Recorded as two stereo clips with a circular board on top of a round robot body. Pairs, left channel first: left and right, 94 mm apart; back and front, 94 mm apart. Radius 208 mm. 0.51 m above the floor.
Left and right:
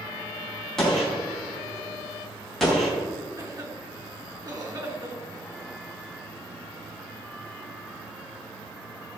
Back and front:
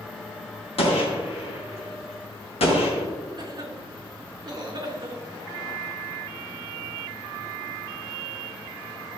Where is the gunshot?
175° left, 3.5 m.